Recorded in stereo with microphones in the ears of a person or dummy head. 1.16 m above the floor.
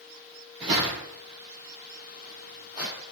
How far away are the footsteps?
About 1.3 m.